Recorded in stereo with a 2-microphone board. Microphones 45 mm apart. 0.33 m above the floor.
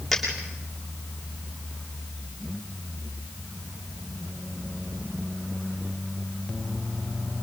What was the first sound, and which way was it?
A dropped coin, centre (ahead or behind).